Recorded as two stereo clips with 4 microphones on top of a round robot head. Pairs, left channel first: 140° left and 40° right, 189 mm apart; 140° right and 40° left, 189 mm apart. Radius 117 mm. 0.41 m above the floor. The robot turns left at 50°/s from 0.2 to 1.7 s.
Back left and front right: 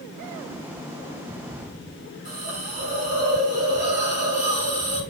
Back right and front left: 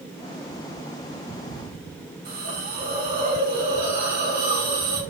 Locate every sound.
2.2 s a hiss: 5° left, 4 m